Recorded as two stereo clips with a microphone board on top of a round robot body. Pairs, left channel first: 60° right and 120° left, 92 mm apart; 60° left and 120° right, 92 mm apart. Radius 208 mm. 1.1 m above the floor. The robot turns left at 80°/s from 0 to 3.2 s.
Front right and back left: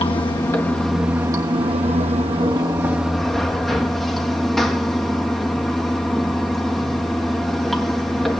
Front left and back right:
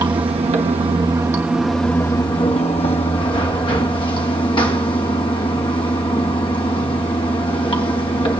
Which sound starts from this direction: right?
Running water, at 0.0 s.